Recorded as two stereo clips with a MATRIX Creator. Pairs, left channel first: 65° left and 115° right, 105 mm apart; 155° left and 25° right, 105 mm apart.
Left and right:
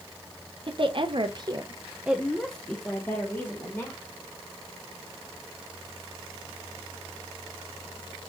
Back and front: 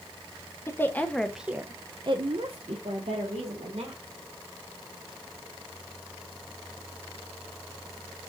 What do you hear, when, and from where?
0.7 s a woman speaking: 140° right, 0.8 m; by 4.0 s 5° left, 1.6 m